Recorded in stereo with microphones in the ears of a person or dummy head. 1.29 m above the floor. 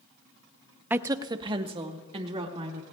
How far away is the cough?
I don't hear a cough.